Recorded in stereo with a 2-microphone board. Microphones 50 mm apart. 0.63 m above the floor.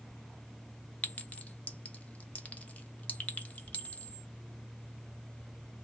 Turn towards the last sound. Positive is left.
turn(degrees=30)  # may be behind; listen again after turning